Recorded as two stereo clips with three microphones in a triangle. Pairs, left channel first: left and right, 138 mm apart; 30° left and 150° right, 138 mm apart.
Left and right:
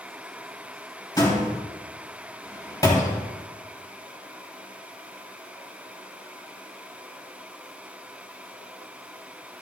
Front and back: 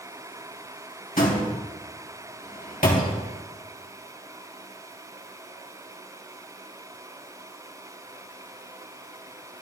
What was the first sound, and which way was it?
A door slam, 30° left.